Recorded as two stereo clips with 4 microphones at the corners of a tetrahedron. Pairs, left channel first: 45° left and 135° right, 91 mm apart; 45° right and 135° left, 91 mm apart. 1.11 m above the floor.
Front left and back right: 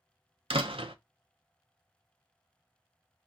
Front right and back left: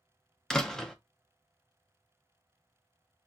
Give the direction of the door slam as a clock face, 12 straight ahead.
4 o'clock.